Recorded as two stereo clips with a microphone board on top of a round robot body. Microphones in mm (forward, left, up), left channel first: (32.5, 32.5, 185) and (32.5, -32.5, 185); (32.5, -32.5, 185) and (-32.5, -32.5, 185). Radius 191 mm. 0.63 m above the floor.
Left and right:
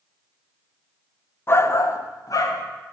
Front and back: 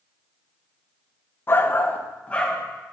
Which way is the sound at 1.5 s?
45° left.